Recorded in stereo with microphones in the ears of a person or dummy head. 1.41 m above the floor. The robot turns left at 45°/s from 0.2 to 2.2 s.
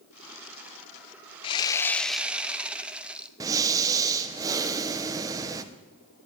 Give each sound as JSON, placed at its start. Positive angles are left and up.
{"t": 1.4, "sound": "sawing", "azimuth_deg": 25, "distance_m": 0.5}
{"t": 3.4, "sound": "breathing", "side_deg": -25, "distance_m": 0.9}